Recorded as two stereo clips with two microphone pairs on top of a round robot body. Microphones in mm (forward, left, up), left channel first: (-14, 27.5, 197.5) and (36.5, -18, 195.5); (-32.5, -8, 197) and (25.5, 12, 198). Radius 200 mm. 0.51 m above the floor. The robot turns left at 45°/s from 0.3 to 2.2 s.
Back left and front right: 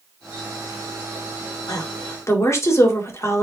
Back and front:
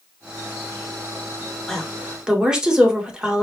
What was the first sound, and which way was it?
A woman speaking, 120° left.